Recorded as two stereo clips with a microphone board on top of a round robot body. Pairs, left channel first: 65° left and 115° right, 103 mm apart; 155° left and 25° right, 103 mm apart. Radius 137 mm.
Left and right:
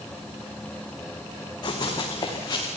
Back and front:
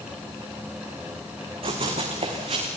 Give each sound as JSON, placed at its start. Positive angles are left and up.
{"t": 1.6, "sound": "running footsteps", "azimuth_deg": 15, "distance_m": 4.0}